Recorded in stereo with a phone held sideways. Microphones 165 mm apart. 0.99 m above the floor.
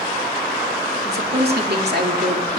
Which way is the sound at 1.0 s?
75° right (ahead or behind).